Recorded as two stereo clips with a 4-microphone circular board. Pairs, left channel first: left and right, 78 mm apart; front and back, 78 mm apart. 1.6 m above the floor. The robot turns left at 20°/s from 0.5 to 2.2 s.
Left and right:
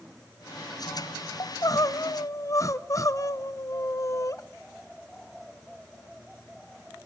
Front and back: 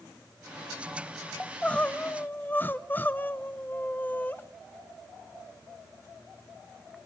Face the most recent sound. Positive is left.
turn(degrees=60)